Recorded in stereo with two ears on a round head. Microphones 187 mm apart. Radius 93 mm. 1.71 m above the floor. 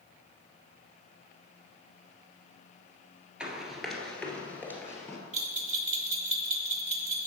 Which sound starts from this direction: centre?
Running footsteps, at 3.4 s.